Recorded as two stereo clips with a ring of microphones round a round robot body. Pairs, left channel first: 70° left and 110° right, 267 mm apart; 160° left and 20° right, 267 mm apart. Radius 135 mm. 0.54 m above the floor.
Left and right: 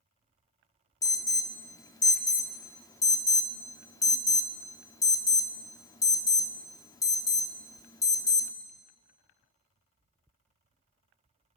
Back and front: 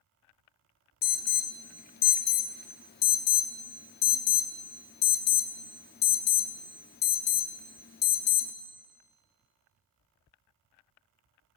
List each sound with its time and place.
1.0 s an alarm: 140° left, 0.6 m